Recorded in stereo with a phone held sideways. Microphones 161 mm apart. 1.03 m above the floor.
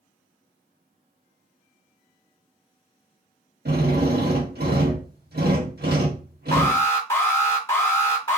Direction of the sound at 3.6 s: 80° right.